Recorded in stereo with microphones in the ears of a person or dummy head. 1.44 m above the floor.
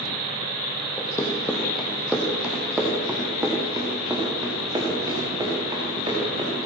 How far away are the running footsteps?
About 3 m.